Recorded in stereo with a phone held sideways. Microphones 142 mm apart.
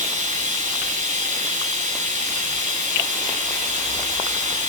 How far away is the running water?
About 8.5 m.